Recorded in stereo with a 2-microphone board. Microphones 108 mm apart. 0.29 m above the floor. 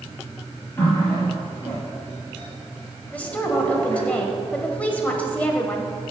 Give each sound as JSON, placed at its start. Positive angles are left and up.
{"t": 0.8, "sound": "a running tap", "side_deg": 20, "distance_m": 4.5}
{"t": 3.1, "sound": "a woman speaking", "side_deg": 10, "distance_m": 1.4}